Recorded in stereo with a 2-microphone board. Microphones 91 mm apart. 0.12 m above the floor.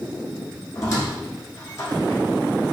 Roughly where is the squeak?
Left.